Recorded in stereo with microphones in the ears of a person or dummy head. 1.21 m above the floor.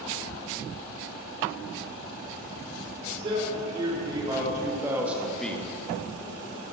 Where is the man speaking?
35° right (ahead or behind), 5 m; by 5.7 s 10° left (ahead or behind), 1.4 m.